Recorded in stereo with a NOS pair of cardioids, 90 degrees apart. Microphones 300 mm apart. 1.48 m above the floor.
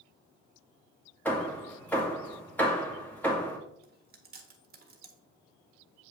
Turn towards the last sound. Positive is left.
turn(degrees=-30)